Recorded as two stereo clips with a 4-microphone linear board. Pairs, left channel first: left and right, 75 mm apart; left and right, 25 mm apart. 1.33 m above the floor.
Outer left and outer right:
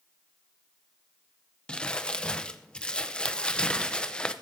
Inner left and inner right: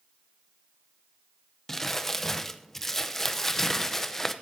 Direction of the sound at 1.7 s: 15° left (ahead or behind).